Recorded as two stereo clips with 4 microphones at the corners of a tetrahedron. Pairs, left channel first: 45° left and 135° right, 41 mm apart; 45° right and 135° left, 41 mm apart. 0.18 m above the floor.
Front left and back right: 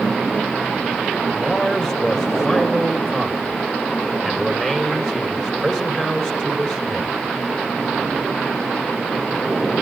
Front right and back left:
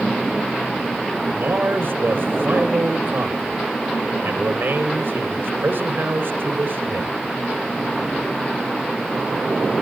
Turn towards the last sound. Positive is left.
turn(degrees=120)